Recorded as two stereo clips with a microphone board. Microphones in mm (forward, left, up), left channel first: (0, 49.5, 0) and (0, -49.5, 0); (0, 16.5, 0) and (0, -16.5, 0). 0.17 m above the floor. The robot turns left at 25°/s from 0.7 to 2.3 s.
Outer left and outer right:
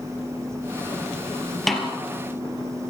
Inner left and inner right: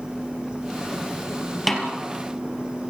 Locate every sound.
1.7 s a snare drum: centre (ahead or behind), 3.5 m; by 1.9 s 5° right (ahead or behind), 3.5 m